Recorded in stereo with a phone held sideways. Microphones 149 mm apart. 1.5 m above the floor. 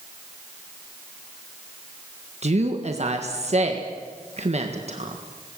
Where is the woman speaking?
50° right (ahead or behind), 1.6 m.